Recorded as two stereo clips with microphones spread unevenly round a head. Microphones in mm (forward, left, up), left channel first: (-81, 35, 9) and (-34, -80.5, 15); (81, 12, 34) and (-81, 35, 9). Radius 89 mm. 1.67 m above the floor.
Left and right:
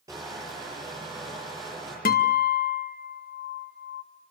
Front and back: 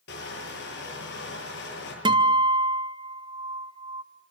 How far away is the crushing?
About 9.5 m.